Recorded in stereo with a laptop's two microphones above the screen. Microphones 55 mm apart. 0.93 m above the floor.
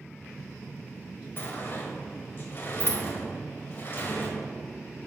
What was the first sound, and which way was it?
A sliding door, 45° left (ahead or behind).